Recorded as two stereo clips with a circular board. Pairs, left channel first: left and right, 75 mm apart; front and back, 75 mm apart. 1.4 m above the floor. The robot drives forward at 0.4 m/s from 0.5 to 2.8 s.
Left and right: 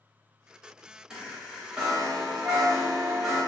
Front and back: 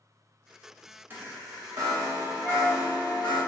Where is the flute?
75° right, 1.2 m; by 3.4 s 80° right, 1.2 m.